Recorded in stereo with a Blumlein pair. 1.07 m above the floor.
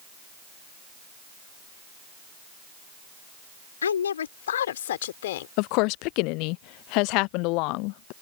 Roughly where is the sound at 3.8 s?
Left.